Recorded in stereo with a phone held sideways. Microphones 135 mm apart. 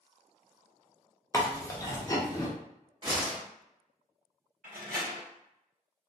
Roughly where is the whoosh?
Right.